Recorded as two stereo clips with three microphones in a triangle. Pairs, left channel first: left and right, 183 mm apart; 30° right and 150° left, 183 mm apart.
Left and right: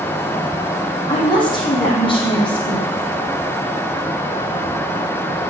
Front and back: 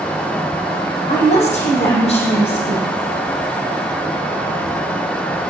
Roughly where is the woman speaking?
Ahead left.